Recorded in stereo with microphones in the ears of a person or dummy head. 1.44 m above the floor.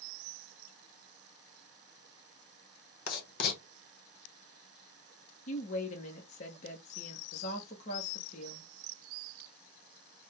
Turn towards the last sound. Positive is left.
turn(degrees=45)  # may be behind; listen again after turning